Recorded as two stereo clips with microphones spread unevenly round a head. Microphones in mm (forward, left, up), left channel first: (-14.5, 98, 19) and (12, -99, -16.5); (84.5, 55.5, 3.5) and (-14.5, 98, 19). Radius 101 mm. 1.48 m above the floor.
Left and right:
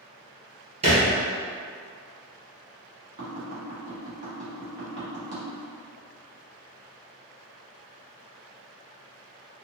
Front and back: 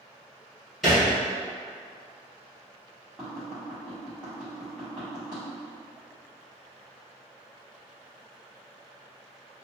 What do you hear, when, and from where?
0.8 s a thud: 130° right, 1.6 m
3.2 s tapping: 120° right, 1.4 m